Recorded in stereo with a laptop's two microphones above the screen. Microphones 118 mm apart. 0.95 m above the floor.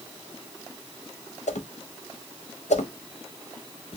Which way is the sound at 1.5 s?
80° left.